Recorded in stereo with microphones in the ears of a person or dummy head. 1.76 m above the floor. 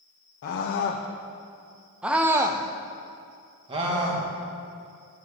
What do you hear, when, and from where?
0.4 s a scream: 55° left (ahead or behind), 0.9 m; by 5.3 s 35° right (ahead or behind), 3 m